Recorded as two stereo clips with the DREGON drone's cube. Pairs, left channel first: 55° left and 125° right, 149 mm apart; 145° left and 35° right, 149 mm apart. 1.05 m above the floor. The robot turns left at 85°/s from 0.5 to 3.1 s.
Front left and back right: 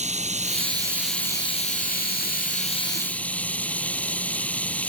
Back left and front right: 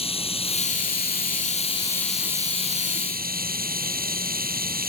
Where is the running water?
165° right; by 4.9 s 25° right.